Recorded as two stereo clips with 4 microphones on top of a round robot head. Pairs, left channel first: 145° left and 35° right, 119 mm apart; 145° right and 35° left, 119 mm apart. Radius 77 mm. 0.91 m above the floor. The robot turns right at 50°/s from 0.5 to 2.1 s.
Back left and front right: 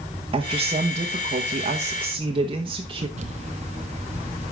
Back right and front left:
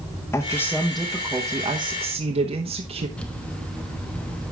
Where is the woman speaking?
75° right, 1.2 m; by 3.1 s 5° left, 1.2 m.